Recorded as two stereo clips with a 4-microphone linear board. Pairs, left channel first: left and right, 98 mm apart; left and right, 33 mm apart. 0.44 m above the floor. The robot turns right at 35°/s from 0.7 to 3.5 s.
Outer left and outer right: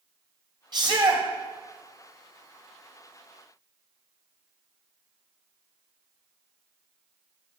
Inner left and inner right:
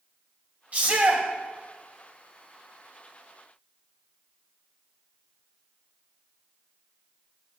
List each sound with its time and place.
0.7 s a shout: 50° right (ahead or behind), 2.5 m; by 1.2 s 60° right (ahead or behind), 2.5 m